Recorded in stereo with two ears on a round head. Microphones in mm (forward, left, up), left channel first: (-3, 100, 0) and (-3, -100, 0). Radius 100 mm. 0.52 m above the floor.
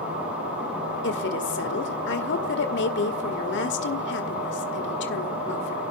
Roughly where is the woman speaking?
Left.